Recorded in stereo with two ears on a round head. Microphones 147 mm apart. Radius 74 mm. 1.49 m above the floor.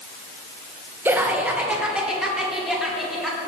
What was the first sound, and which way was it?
Laughter, 15° right (ahead or behind).